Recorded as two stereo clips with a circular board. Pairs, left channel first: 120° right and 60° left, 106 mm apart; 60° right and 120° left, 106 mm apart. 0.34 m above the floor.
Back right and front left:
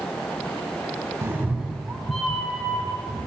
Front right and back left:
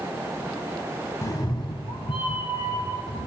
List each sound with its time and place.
1.2 s a cat meowing: straight ahead, 0.8 m; by 3.3 s 40° right, 3 m